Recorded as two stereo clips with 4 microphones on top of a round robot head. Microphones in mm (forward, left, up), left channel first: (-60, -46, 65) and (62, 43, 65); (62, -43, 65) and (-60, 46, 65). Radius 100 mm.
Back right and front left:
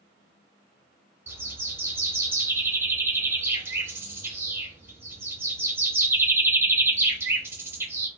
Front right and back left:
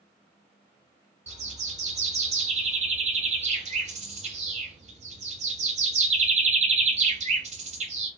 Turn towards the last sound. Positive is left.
turn(degrees=110)